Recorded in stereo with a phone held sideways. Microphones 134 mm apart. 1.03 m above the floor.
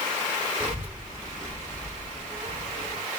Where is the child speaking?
25° right (ahead or behind), 1.0 m; by 3.0 s 55° left (ahead or behind), 1.5 m.